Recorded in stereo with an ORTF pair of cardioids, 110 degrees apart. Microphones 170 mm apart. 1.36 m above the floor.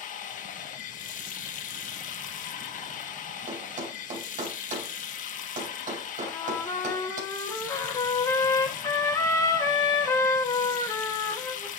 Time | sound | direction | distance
0.0 | running water | 50° left | 1.3 m
3.5 | a thud | 50° right | 3.5 m
6.2 | a trumpet | 20° left | 2.5 m